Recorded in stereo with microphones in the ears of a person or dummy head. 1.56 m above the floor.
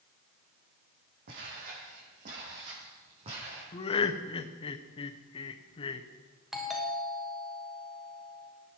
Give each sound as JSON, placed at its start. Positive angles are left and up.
{"t": 1.3, "sound": "footsteps", "side_deg": -55, "distance_m": 4.5}
{"t": 3.7, "sound": "laughter", "side_deg": 35, "distance_m": 0.9}
{"t": 6.5, "sound": "a doorbell", "side_deg": 0, "distance_m": 1.6}